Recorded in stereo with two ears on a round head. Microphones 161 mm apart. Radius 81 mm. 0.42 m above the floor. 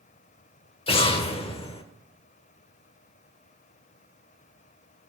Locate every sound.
0.9 s an explosion: 35° left (ahead or behind), 1.0 m